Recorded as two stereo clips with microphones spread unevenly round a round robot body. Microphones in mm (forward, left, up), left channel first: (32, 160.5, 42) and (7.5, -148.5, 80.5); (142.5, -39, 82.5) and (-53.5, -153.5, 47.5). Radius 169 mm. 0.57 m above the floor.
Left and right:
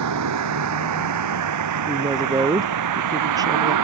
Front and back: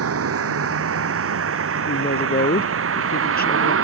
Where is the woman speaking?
15° right.